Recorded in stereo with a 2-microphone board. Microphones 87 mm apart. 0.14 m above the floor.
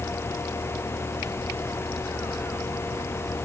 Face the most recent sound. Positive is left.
No sound to turn to.